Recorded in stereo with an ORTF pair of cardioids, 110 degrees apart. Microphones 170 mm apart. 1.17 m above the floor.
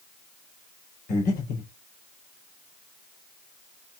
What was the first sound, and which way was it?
Breathing, 55° left.